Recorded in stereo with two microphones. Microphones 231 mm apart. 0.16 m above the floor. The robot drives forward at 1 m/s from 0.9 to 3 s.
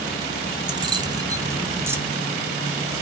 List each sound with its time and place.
0.7 s keys jangling: 20° right (ahead or behind), 0.8 m; by 2.0 s 10° right (ahead or behind), 1.4 m